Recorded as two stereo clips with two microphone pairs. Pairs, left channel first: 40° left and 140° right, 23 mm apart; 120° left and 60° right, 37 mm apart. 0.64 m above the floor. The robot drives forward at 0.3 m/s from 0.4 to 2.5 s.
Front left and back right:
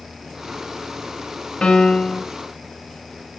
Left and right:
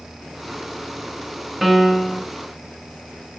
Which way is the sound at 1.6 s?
30° left.